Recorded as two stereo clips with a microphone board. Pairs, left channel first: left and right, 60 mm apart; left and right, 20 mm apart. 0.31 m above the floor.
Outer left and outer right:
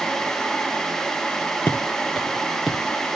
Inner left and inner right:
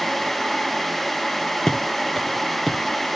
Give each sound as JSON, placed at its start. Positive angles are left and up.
{"t": 1.7, "sound": "footsteps", "side_deg": 35, "distance_m": 1.2}